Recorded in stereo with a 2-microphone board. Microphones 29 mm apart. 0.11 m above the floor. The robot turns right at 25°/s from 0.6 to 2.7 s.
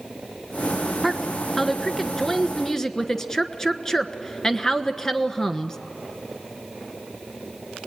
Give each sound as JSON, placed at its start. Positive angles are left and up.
{"t": 1.0, "sound": "a woman speaking", "side_deg": 0, "distance_m": 1.1}